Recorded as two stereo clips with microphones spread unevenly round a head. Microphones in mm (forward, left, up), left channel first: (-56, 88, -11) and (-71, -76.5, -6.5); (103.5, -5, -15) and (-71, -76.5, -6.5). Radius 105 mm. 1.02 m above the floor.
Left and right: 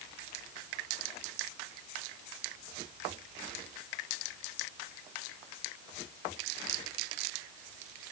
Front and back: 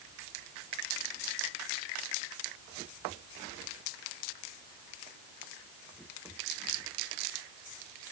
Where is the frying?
No frying in this recording.